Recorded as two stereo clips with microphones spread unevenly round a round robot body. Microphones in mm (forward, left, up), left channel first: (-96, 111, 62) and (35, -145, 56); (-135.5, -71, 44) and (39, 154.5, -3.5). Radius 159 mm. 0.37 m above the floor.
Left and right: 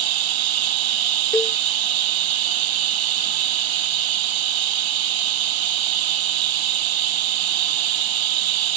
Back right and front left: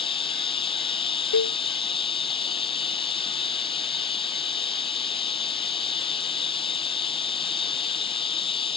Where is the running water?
55° right.